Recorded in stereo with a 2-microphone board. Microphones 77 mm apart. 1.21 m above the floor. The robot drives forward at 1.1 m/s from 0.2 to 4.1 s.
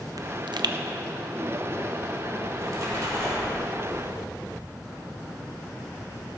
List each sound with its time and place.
0.2 s a pop: 55° right (ahead or behind), 0.6 m; by 0.8 s 60° right (ahead or behind), 0.5 m
2.5 s a splash: 55° right (ahead or behind), 2 m; by 4.0 s 30° right (ahead or behind), 3.5 m